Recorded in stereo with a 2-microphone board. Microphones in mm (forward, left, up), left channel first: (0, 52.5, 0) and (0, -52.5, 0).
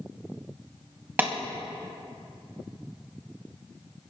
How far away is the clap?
About 1.6 m.